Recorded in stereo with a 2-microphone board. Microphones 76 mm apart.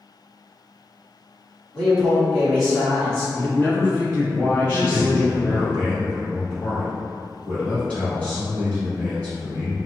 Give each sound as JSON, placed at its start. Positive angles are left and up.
{"t": 1.7, "sound": "a man speaking", "side_deg": 5, "distance_m": 1.7}
{"t": 3.4, "sound": "a man speaking", "side_deg": 15, "distance_m": 1.9}
{"t": 4.7, "sound": "a man speaking", "side_deg": 15, "distance_m": 1.2}